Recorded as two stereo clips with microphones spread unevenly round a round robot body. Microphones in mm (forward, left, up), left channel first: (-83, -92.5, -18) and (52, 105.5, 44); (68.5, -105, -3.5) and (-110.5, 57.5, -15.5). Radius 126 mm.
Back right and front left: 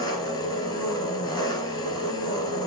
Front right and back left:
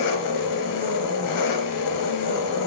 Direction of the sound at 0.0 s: 50° right.